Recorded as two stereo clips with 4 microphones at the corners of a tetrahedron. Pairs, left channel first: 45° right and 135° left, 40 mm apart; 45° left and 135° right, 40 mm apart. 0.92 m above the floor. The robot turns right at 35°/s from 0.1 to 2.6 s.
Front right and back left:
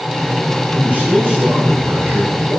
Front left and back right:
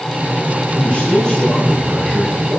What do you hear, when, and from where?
0.7 s a man speaking: 95° left, 8.5 m; by 2.6 s 160° left, 8.5 m